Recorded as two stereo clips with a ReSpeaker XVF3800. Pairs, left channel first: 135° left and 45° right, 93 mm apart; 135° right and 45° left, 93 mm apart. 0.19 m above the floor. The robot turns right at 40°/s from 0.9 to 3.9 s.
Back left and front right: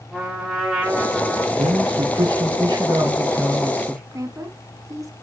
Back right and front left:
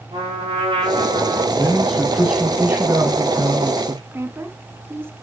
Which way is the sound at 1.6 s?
65° right.